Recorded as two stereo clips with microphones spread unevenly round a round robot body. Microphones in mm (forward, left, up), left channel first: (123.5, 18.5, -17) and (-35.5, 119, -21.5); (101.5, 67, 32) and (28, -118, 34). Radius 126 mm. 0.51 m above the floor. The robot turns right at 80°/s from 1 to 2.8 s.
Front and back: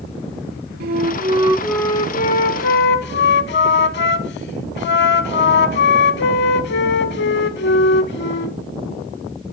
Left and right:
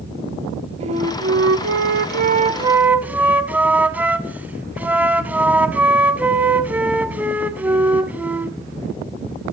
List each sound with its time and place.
0.8 s a flute: 175° right, 0.6 m; by 8.6 s 30° right, 0.6 m